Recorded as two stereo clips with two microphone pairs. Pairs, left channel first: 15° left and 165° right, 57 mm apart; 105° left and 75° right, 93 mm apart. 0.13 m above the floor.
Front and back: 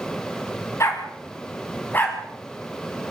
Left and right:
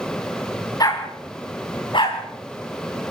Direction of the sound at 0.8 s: 55° left.